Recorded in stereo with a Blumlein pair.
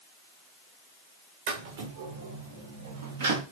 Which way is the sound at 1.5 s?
55° right.